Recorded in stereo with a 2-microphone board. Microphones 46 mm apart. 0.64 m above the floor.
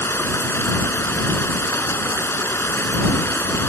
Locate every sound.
0.0 s running water: 70° left (ahead or behind)